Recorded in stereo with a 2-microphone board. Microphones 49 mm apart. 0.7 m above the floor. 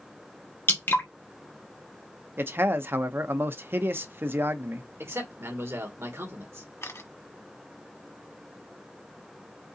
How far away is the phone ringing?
I don't hear a phone ringing.